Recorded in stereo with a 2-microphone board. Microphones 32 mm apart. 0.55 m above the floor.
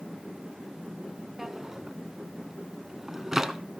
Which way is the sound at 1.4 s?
10° right (ahead or behind).